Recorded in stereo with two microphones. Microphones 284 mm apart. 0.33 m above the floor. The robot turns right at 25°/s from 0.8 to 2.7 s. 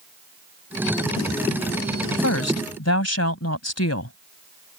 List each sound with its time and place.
2.1 s a woman speaking: 60° left (ahead or behind); by 4.2 s 55° left (ahead or behind)